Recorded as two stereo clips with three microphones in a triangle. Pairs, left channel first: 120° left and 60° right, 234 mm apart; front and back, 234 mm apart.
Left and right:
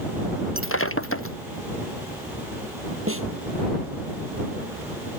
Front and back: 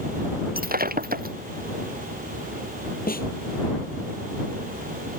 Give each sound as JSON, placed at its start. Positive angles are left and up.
{"t": 0.6, "sound": "breaking glass", "azimuth_deg": 135}
{"t": 3.1, "sound": "a snare drum", "azimuth_deg": -50}